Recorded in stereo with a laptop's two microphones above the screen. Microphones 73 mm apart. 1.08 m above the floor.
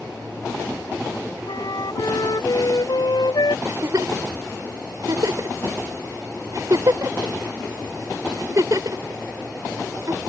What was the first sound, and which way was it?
A flute, 75° left (ahead or behind).